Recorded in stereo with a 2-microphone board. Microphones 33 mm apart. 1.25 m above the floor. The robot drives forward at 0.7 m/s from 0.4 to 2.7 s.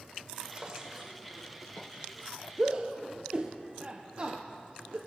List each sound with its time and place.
0.5 s a drawer: 30° right (ahead or behind), 1.4 m; by 1.1 s 20° right (ahead or behind), 1.7 m
2.6 s a shout: 35° right (ahead or behind), 0.8 m